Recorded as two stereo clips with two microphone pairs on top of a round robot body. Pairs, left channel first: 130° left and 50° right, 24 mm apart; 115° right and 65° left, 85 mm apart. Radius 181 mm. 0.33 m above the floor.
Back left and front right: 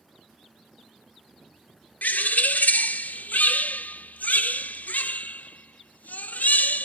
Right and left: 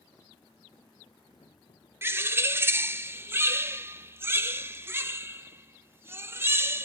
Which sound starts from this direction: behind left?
A bird, at 2.0 s.